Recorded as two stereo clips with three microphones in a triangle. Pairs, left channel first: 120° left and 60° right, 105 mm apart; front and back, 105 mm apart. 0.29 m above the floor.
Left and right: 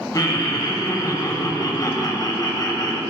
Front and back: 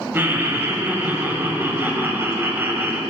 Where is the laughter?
130° left, 1.2 m.